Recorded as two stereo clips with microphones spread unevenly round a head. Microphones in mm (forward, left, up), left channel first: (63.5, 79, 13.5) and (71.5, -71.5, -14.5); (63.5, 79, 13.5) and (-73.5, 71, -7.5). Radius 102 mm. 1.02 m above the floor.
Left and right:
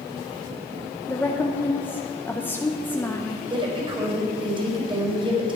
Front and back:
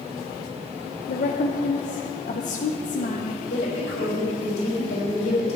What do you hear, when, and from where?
1.1 s a woman speaking: 10° left, 0.8 m
3.5 s a woman speaking: 30° right, 4.5 m